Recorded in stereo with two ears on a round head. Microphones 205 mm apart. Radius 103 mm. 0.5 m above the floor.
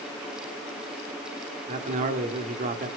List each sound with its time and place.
1.7 s a man speaking: 35° right (ahead or behind), 0.9 m